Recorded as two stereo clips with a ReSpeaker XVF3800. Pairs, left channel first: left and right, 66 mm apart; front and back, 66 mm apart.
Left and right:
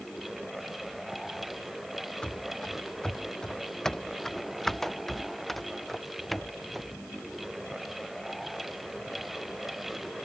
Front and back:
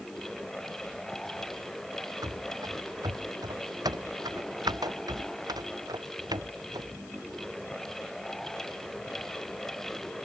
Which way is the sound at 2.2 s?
165° left.